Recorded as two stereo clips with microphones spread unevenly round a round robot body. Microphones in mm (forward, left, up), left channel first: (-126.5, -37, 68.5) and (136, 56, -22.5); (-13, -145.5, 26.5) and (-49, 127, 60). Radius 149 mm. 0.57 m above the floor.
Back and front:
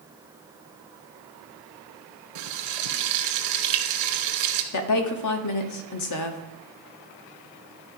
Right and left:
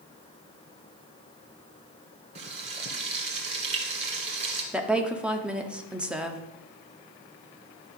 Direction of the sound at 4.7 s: 170° right.